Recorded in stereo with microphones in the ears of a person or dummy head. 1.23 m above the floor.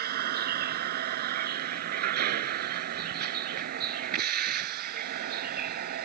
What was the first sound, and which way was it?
A vehicle, 50° right (ahead or behind).